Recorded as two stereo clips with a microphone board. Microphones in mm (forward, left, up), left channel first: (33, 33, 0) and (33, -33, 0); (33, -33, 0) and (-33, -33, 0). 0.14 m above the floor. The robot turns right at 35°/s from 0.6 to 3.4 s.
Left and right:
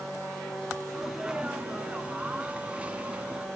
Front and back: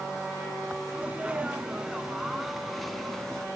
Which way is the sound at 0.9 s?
155° right.